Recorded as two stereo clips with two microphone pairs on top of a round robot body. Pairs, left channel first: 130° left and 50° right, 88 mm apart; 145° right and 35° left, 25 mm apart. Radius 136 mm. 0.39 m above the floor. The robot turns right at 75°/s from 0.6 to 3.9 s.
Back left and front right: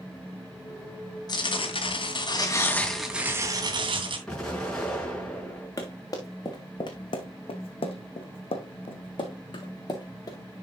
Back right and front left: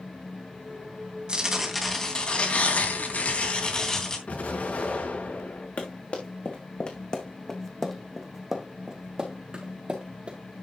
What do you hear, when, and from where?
1.3 s tearing paper: 90° left, 3 m; by 4.2 s 75° right, 3 m
4.3 s an explosion: 150° right, 5 m
5.8 s running footsteps: 175° right, 3.5 m; by 10.4 s 80° left, 4 m